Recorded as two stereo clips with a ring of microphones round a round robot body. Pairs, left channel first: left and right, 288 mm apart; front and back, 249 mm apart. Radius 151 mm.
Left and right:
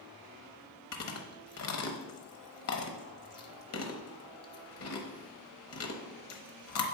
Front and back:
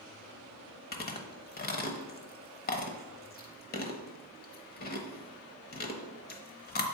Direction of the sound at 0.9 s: 50° left.